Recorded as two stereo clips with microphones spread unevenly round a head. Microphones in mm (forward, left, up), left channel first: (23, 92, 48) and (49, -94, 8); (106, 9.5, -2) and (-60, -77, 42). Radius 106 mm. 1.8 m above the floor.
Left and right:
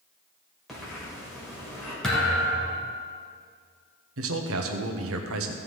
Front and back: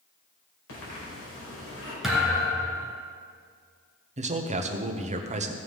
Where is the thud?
155° left, 1.9 m.